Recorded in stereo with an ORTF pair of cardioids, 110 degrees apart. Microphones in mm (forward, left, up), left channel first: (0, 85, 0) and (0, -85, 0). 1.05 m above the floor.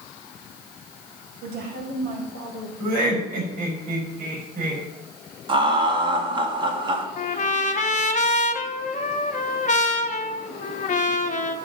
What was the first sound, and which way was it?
A woman speaking, 65° right.